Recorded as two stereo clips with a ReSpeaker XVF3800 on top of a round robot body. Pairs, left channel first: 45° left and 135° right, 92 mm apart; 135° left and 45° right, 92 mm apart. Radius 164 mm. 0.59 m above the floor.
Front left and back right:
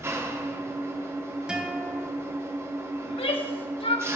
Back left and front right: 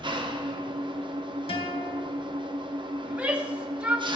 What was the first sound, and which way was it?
An engine running, 75° right.